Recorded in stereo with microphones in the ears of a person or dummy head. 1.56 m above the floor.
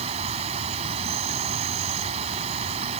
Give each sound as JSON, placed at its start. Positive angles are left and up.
{"t": 0.0, "sound": "an insect", "side_deg": -35}